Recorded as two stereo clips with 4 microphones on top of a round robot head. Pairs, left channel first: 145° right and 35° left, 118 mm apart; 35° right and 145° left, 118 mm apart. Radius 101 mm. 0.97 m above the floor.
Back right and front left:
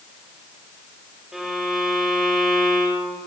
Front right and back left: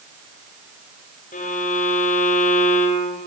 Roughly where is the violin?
Ahead right.